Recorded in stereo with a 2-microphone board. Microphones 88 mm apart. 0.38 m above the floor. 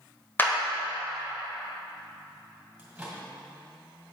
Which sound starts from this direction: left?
A clap, at 0.4 s.